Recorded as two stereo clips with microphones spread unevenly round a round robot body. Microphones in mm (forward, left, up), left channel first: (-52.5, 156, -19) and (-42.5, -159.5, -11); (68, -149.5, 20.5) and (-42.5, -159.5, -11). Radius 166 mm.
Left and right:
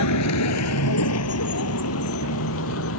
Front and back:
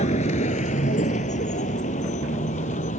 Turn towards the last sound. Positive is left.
turn(degrees=40)